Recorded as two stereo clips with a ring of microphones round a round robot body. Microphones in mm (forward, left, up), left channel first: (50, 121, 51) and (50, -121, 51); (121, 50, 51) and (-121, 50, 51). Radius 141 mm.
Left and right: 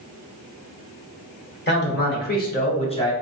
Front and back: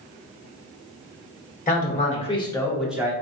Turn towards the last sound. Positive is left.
turn(degrees=135)